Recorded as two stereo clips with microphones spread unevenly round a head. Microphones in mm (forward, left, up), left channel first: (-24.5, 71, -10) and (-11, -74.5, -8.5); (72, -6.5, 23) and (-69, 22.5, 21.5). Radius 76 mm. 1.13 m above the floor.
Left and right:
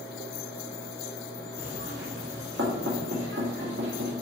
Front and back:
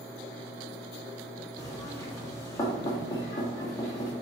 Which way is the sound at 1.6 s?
80° right.